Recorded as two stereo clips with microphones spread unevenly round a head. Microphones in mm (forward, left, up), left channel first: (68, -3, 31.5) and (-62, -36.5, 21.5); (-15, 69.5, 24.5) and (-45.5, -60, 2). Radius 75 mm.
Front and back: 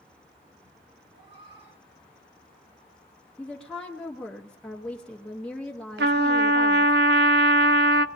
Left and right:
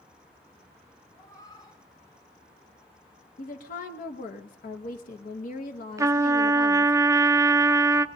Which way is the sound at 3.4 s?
100° left.